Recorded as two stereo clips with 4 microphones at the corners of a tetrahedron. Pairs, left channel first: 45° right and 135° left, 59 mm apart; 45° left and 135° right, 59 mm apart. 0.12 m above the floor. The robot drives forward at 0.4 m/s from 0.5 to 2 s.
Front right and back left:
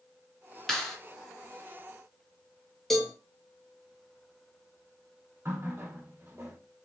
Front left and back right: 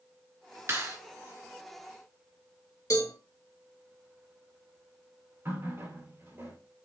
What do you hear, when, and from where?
0.7 s a clap: 125° right, 2.5 m
2.9 s a cowbell: 40° left, 1.5 m
5.5 s a running tap: 175° right, 1.7 m